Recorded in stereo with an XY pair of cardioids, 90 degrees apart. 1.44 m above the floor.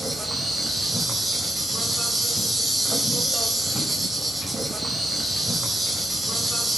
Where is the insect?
15° right, 4 m.